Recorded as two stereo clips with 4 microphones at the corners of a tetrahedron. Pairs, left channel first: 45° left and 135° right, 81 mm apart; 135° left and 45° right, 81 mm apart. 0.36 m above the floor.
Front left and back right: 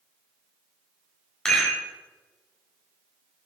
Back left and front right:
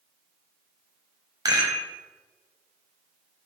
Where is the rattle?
35° right, 1.6 m.